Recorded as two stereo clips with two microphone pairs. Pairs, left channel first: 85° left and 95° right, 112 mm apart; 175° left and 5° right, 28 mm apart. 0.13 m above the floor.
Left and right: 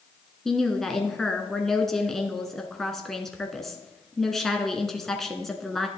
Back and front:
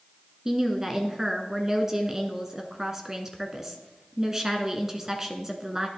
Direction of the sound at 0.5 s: Straight ahead.